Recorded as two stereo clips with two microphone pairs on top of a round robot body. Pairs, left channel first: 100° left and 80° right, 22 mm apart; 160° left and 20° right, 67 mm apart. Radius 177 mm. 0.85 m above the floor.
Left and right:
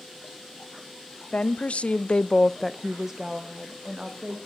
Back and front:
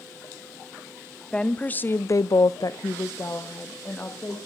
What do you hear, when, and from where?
1.3 s a woman speaking: 85° left, 1.3 m; by 4.4 s 135° right, 2.5 m